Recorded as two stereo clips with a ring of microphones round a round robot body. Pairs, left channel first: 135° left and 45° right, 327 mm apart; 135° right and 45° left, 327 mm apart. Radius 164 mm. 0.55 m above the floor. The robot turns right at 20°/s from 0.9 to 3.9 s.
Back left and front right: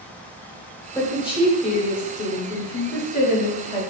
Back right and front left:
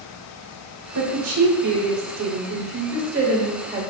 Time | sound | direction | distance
0.9 | a woman speaking | 55° left | 1.2 m